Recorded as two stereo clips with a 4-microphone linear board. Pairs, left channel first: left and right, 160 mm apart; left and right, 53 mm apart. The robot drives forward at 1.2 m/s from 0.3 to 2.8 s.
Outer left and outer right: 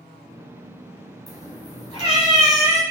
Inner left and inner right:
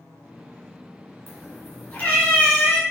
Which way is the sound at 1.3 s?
45° left (ahead or behind).